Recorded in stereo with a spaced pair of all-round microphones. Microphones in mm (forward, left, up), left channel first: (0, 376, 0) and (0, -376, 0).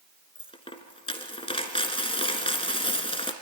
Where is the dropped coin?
5° left (ahead or behind), 1.2 m.